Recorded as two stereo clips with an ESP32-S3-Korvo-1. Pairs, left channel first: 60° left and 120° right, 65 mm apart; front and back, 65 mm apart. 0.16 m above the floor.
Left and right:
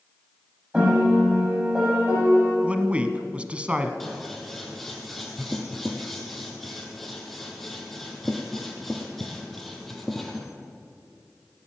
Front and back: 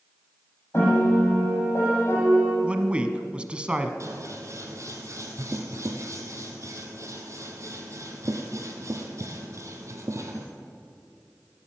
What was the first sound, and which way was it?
A piano, 45° right.